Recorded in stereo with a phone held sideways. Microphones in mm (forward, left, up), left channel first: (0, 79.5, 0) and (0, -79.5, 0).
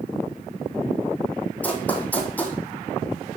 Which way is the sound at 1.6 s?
10° left (ahead or behind).